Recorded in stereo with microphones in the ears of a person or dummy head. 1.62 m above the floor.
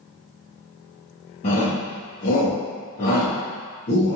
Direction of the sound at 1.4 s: 35° left (ahead or behind).